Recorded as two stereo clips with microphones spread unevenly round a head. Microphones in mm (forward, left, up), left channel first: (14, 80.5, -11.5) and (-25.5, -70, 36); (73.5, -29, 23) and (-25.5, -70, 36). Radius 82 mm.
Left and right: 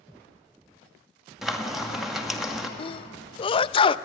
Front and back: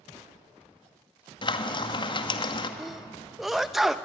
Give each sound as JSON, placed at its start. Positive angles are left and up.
{"t": 1.4, "sound": "frying", "azimuth_deg": -10, "distance_m": 1.9}
{"t": 2.8, "sound": "a sneeze", "azimuth_deg": 110, "distance_m": 0.6}